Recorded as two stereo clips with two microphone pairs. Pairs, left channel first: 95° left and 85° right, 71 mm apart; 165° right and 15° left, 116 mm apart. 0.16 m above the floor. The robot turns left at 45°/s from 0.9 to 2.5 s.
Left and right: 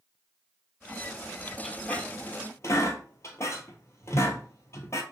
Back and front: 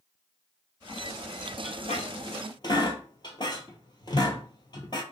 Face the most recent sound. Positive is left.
turn(degrees=145)